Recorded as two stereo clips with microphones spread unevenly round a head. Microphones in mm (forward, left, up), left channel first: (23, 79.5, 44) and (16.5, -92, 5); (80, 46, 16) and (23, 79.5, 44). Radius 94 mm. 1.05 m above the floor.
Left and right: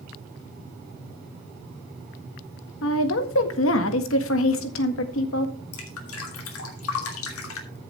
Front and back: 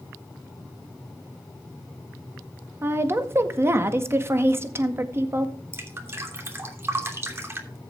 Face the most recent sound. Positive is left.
turn(degrees=95)